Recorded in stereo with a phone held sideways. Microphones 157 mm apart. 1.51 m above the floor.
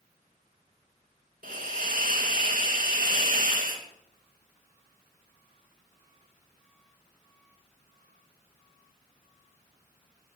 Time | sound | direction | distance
1.4 | a hiss | 65° right (ahead or behind) | 1.9 m